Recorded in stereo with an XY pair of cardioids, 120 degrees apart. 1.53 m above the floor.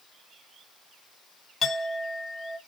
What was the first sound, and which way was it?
A clink, 25° left.